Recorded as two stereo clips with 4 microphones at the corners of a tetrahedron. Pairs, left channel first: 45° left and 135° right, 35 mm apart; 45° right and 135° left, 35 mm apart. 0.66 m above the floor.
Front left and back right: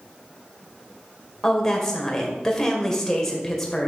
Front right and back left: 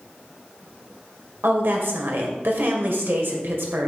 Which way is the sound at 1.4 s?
120° left.